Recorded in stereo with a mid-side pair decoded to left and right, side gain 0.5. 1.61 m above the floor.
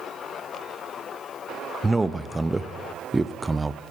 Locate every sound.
1.8 s a man speaking: 10° right, 0.6 m